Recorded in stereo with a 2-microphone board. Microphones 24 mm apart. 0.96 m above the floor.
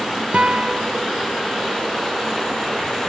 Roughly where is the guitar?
Right.